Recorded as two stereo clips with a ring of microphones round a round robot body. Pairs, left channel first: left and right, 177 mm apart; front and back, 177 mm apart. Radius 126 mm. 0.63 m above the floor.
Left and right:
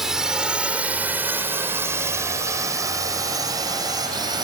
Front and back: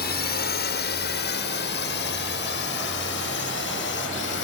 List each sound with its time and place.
0.0 s a drone: 5° right; by 4.5 s 25° right